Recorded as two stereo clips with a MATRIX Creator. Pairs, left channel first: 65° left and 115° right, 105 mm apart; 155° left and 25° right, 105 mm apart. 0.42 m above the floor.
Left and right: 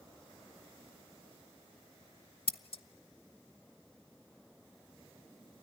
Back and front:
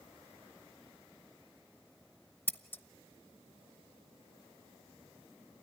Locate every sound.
2.5 s scissors: 85° left, 0.7 m